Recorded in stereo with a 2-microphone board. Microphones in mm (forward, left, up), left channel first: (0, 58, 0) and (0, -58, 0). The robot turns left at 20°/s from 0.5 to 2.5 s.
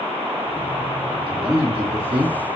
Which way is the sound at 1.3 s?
55° right (ahead or behind).